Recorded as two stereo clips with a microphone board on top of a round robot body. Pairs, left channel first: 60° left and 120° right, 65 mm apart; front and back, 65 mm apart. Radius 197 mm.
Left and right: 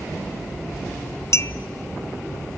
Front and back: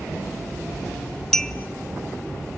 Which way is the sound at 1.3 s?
80° left.